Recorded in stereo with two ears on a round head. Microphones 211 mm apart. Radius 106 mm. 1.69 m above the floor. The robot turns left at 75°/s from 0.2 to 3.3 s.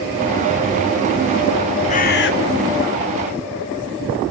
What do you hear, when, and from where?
1.9 s a bird: 150° left, 1.9 m; by 2.3 s 115° left, 1.9 m